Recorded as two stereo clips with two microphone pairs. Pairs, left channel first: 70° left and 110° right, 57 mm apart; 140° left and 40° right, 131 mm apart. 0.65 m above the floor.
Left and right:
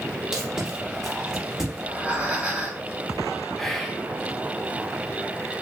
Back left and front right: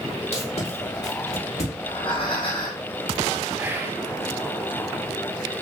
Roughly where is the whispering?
Ahead.